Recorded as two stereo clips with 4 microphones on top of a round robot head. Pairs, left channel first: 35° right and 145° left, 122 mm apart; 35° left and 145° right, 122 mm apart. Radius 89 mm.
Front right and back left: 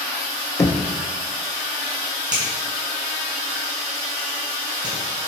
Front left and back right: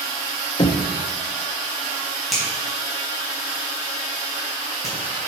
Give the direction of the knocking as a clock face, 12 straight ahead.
12 o'clock.